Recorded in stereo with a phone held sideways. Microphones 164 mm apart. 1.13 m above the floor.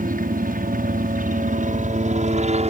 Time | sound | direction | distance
0.0 | a helicopter | 60° right (ahead or behind) | ?